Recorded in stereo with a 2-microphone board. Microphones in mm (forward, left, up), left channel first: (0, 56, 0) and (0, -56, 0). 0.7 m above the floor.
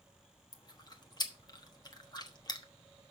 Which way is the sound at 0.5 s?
40° left (ahead or behind).